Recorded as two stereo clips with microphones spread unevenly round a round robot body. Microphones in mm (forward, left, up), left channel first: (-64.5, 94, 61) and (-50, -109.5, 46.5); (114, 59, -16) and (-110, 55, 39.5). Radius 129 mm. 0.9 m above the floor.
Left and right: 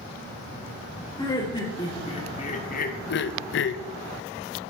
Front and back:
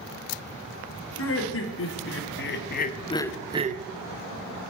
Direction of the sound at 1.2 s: 20° left.